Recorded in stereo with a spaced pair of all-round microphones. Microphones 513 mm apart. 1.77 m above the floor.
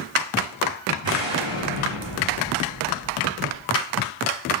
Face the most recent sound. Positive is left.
turn(degrees=-60)  # may be behind; listen again after turning